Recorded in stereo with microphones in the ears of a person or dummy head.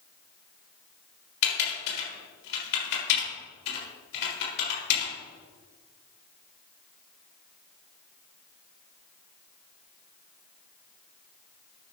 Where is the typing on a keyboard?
60° left (ahead or behind), 3.5 m.